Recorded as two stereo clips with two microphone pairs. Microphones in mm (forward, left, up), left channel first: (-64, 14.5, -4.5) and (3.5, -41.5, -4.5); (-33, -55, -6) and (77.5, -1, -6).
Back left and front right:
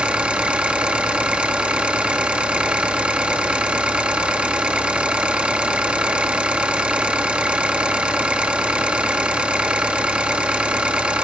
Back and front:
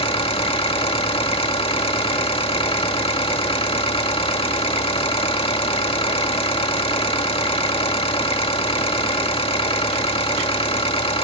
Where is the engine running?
115° right, 1.9 m.